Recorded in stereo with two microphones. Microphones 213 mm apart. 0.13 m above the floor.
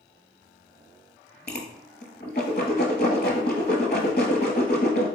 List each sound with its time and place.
1.5 s a whoosh: 50° left (ahead or behind), 0.9 m